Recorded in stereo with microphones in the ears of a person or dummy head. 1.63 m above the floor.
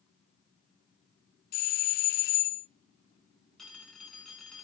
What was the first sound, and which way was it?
A doorbell, 40° left (ahead or behind).